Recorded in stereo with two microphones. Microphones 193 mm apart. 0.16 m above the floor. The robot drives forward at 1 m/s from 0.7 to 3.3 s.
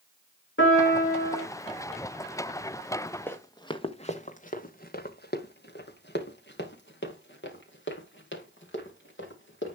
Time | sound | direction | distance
0.6 | a piano | 85° left | 8 m
3.3 | running footsteps | 10° left (ahead or behind) | 1.7 m